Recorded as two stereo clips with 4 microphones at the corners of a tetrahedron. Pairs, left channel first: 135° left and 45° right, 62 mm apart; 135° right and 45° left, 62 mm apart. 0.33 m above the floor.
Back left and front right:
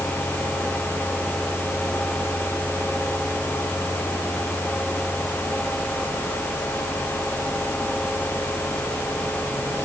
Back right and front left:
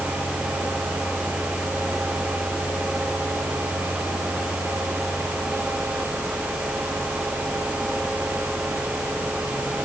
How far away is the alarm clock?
I don't hear an alarm clock.